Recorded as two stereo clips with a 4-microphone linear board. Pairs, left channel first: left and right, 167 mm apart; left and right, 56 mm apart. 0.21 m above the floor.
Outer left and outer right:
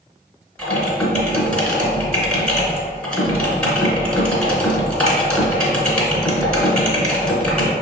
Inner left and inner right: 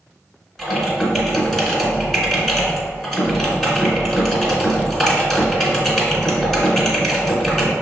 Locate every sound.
0.6 s typing on a keyboard: 5° left (ahead or behind), 1.2 m